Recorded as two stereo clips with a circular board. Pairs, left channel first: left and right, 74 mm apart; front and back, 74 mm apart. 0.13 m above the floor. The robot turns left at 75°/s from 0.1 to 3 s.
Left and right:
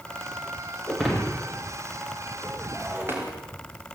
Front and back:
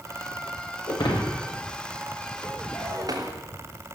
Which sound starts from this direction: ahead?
Breaking glass, at 0.9 s.